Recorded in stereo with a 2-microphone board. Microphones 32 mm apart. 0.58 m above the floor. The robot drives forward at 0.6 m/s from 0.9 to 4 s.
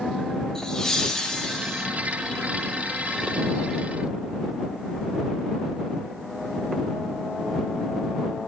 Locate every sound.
0.6 s laughter: 15° left (ahead or behind), 0.9 m